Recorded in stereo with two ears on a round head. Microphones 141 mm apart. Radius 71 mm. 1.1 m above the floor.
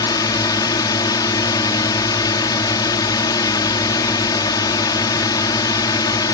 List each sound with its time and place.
0.0 s a drone: 25° left (ahead or behind)